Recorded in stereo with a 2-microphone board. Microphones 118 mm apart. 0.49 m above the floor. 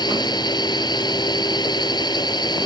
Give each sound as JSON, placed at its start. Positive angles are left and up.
{"t": 0.0, "sound": "a drone", "side_deg": 35}